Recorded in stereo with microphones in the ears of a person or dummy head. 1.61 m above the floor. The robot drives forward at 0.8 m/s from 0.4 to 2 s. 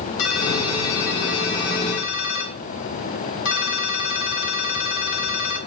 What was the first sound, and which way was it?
A ringtone, 80° left.